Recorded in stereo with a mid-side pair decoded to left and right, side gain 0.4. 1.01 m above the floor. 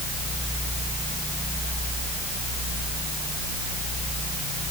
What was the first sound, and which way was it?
Only background noise.